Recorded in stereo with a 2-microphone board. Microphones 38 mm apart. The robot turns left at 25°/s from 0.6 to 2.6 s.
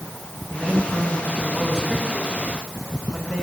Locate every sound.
0.5 s a man speaking: 165° right, 9.5 m; by 3.4 s 145° left, 9.5 m